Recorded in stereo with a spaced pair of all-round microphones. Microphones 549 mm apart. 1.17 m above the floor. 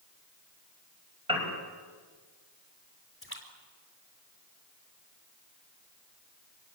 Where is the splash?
25° left (ahead or behind), 4.5 m.